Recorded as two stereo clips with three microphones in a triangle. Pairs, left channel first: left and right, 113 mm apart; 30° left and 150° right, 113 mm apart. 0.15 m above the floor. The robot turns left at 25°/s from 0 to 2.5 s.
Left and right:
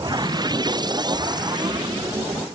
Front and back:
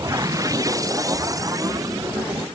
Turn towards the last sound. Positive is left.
No sound to turn to.